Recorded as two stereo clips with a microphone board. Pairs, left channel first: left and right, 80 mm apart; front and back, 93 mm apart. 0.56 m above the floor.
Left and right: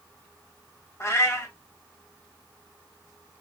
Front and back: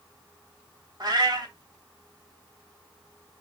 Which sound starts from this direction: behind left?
A cat meowing, at 1.0 s.